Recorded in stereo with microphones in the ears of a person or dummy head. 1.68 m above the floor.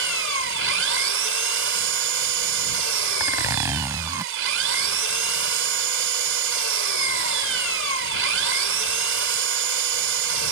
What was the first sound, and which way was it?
An engine running, 80° right.